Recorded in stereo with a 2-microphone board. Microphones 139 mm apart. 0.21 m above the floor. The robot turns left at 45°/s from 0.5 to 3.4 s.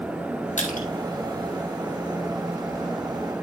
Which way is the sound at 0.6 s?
60° left (ahead or behind).